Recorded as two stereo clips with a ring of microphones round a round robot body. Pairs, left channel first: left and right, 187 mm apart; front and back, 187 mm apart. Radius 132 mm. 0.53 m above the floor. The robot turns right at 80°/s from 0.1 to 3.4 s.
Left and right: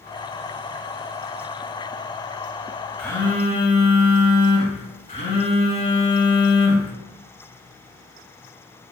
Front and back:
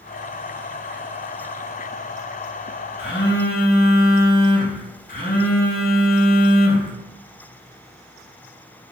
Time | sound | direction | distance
3.0 | a phone buzzing | 5° left | 1.1 m